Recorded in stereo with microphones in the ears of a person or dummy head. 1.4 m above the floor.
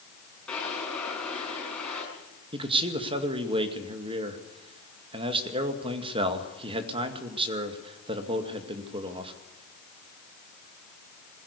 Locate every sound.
0.5 s a drawer: 5° left (ahead or behind), 5 m
2.5 s a man speaking: 30° right (ahead or behind), 2 m